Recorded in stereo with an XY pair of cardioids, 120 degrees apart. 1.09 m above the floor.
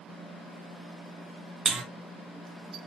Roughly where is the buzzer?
Ahead right.